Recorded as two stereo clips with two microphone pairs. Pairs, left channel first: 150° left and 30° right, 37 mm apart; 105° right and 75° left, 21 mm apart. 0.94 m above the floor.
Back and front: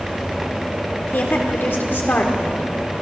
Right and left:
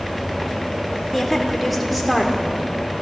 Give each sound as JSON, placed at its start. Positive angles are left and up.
{"t": 1.1, "sound": "a woman speaking", "azimuth_deg": 175, "distance_m": 3.5}